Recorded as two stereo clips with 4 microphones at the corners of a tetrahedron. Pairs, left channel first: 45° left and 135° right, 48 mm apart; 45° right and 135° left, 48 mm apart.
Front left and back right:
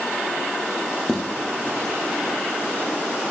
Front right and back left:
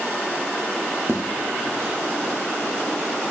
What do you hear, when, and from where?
1.1 s footsteps: 130° left, 1.7 m; by 2.4 s 100° left, 1.4 m